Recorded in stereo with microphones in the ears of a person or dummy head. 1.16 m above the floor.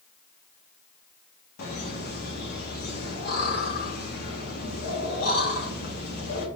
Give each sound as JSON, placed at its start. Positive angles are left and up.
{"t": 1.6, "sound": "laughter", "side_deg": 55, "distance_m": 1.0}